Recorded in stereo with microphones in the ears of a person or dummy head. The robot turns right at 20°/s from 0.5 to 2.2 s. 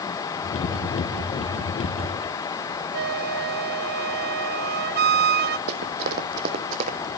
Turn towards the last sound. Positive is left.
turn(degrees=-45)  # may be behind; listen again after turning